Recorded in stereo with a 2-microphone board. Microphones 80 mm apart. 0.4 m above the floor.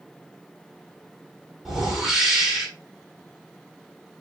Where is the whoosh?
5° right (ahead or behind), 1.2 m.